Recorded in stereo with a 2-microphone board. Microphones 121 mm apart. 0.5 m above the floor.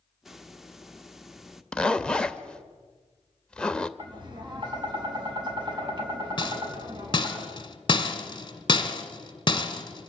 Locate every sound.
0.2 s a hiss: centre (ahead or behind), 0.9 m
1.7 s a zipper: 5° left (ahead or behind), 0.8 m
4.0 s tapping: 40° right (ahead or behind), 4 m
6.4 s a rattle: 40° left (ahead or behind), 1.5 m